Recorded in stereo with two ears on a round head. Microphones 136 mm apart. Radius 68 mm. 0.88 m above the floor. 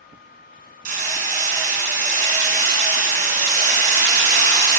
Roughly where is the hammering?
Right.